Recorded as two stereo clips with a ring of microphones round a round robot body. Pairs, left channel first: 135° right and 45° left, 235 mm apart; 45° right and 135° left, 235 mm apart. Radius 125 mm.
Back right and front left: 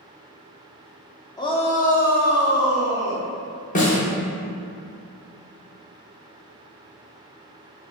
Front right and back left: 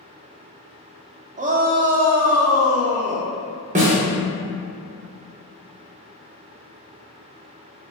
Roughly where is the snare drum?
Behind.